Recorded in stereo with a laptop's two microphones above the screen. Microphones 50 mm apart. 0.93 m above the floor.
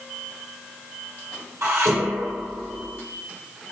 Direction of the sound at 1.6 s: 65° right (ahead or behind).